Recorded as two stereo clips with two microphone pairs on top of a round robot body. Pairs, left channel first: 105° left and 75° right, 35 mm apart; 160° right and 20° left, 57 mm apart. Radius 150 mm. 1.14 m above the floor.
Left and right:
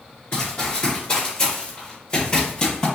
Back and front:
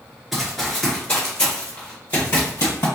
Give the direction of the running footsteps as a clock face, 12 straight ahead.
8 o'clock.